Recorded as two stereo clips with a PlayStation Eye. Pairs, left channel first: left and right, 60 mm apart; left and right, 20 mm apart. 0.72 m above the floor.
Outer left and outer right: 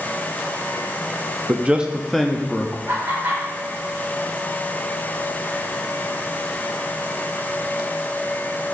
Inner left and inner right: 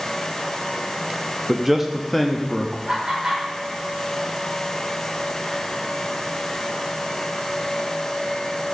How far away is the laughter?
About 3 m.